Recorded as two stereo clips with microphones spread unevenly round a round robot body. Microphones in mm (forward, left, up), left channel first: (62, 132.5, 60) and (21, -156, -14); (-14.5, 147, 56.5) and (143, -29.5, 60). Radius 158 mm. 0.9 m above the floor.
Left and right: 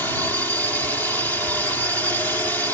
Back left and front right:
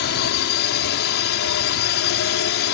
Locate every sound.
0.0 s a drone: 175° left